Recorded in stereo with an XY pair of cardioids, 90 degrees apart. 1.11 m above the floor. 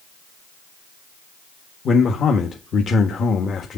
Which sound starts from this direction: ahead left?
A man speaking, at 1.9 s.